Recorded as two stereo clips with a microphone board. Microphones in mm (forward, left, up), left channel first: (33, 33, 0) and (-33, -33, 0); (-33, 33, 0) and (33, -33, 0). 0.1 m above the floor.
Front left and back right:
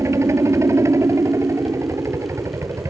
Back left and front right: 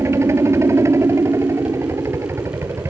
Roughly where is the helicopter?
Right.